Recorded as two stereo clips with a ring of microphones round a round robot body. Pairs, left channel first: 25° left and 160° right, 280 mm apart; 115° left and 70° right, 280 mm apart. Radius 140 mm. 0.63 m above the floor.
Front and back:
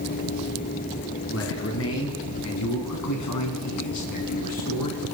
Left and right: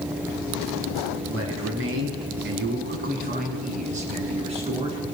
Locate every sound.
1.3 s a man speaking: 25° right, 5.5 m; by 5.0 s 5° left, 7 m